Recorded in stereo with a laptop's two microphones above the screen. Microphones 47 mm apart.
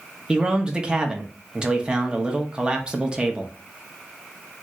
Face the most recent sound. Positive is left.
turn(degrees=-20)  # may be behind; listen again after turning